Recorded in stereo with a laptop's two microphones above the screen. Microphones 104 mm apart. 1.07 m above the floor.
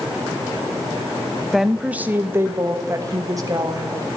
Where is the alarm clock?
No alarm clock in this recording.